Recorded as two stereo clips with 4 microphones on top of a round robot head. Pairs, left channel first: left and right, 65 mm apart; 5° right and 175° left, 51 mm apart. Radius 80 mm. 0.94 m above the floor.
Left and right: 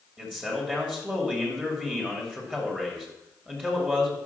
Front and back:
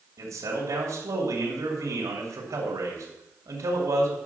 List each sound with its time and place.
0.2 s a man speaking: 165° right, 3 m